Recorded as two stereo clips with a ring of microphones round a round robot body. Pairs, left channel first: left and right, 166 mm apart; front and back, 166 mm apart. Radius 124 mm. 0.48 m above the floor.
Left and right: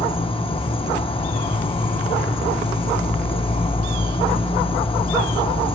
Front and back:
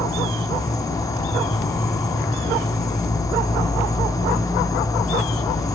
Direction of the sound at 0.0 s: 60° left.